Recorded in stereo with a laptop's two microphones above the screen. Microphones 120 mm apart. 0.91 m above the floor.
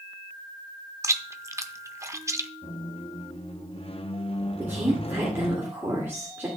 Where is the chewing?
25° right (ahead or behind), 0.6 m.